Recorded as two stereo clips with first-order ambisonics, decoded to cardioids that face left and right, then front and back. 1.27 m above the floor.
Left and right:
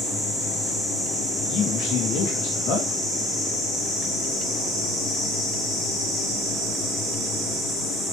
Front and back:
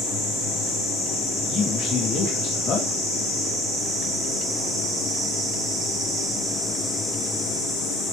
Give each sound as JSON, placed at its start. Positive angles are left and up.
{"t": 1.5, "sound": "a man speaking", "azimuth_deg": 50, "distance_m": 2.0}